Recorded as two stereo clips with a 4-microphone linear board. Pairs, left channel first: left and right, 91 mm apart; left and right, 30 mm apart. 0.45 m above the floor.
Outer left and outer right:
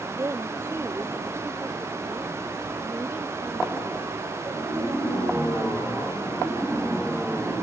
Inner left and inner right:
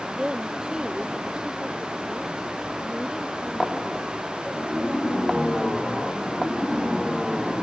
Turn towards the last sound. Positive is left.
turn(degrees=-15)  # may be behind; listen again after turning